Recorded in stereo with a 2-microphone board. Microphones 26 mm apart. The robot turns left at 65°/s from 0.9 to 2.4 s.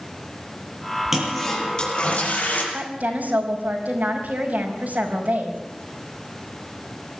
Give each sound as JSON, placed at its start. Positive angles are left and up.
{"t": 1.1, "sound": "a toilet flushing", "azimuth_deg": -165, "distance_m": 7.0}
{"t": 2.7, "sound": "a woman speaking", "side_deg": -80, "distance_m": 5.0}